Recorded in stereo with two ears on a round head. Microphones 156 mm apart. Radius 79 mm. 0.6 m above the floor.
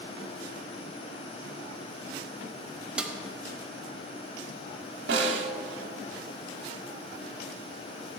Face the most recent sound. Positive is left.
turn(degrees=-75)  # may be behind; listen again after turning